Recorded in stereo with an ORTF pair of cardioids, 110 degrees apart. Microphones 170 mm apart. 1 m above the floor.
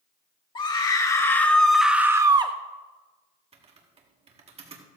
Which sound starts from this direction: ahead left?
A scream, at 0.6 s.